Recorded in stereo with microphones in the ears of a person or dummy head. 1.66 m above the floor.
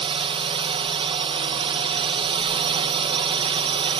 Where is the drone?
30° right (ahead or behind).